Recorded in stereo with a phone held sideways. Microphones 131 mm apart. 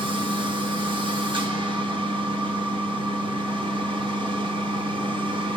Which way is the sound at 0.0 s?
40° right (ahead or behind).